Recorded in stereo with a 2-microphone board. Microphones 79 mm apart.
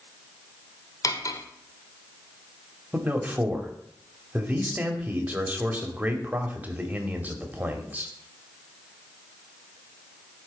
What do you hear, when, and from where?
1.0 s cutlery clinking: 45° left (ahead or behind), 1.0 m
2.9 s a man speaking: 20° right (ahead or behind), 1.7 m